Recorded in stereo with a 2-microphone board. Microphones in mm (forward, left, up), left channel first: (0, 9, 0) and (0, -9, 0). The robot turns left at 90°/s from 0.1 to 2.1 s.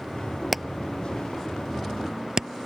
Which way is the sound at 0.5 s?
Centre (ahead or behind).